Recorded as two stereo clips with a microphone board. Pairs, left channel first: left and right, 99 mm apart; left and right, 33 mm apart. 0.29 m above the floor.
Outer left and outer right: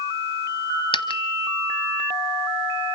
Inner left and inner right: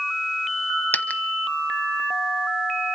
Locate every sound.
0.9 s a dropped coin: 60° left (ahead or behind), 1.0 m